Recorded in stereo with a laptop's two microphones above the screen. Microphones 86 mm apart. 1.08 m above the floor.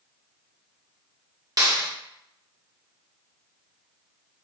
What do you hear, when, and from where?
1.6 s a clap: 45° right (ahead or behind), 0.8 m